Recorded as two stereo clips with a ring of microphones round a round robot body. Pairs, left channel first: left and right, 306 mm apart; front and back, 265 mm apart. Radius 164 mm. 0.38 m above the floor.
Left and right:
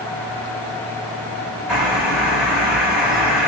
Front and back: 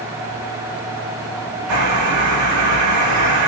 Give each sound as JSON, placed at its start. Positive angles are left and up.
{"t": 1.7, "sound": "a bird", "azimuth_deg": -175, "distance_m": 1.3}